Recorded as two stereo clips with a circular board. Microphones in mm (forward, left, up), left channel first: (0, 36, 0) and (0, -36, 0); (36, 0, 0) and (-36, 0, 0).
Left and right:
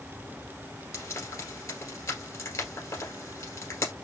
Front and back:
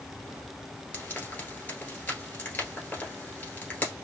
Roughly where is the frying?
Ahead left.